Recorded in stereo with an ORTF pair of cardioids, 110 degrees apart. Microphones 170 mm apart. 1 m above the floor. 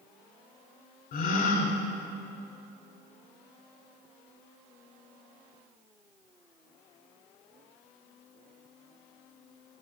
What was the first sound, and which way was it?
A gasp, 65° left.